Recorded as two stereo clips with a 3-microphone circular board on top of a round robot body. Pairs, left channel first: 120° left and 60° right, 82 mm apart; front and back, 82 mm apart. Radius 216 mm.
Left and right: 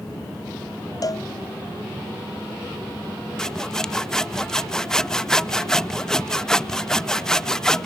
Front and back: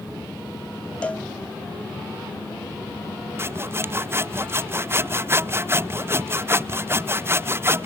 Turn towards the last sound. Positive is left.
turn(degrees=-165)